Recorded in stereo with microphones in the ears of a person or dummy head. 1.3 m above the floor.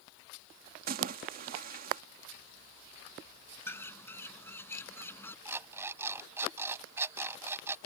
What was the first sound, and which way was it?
A splash, 45° right (ahead or behind).